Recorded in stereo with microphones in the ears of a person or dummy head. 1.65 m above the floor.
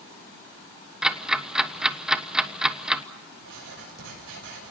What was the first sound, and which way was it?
Ticking, 5° right (ahead or behind).